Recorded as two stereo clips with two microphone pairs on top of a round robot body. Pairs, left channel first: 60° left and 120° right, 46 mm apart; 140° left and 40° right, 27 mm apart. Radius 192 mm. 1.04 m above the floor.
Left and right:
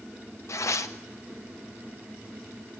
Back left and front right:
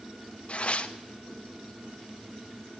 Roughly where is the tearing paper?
Left.